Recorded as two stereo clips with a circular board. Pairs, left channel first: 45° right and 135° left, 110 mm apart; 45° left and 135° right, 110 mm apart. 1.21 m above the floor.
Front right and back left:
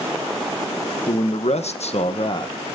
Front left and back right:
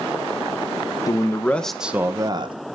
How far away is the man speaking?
About 1.2 m.